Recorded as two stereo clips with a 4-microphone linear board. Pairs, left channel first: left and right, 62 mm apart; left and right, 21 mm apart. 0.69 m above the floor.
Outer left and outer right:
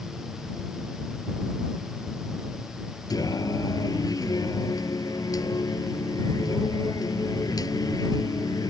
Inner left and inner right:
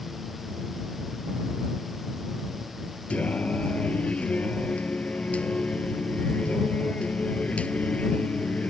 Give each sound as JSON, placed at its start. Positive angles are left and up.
{"t": 3.1, "sound": "singing", "side_deg": 85}